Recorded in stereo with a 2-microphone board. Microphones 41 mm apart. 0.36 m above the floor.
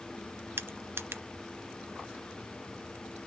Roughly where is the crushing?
Right.